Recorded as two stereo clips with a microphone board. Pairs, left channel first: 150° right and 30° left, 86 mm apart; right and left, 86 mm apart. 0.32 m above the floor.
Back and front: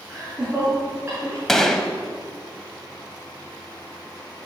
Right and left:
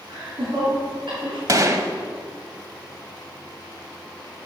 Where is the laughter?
110° left, 5 m; by 1.4 s 90° left, 5 m.